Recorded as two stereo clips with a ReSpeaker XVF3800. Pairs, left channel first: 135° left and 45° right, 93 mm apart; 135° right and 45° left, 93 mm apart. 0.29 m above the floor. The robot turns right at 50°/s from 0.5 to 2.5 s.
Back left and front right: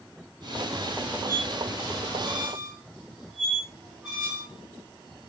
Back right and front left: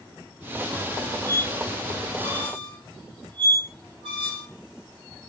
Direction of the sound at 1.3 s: 20° right.